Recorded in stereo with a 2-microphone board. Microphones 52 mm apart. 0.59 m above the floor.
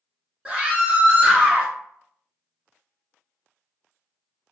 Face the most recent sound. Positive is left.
turn(degrees=-15)  # may be behind; listen again after turning